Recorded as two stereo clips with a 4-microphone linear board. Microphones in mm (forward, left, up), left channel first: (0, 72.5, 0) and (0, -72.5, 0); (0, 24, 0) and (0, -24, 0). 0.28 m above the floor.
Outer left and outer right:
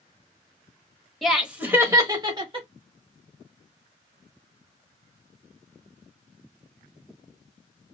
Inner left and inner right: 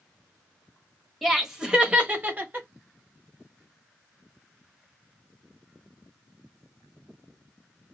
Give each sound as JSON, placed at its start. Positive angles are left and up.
{"t": 1.2, "sound": "laughter", "side_deg": 0, "distance_m": 1.0}